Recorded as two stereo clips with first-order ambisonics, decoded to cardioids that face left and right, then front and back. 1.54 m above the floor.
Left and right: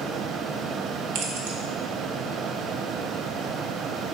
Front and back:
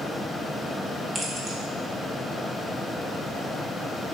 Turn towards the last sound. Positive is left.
turn(degrees=-105)